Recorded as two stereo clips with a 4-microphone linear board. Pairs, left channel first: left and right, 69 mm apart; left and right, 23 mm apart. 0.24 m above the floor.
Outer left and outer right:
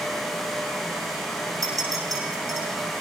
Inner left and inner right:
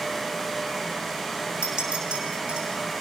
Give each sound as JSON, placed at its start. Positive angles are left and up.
{"t": 1.6, "sound": "a clink", "side_deg": -55, "distance_m": 8.0}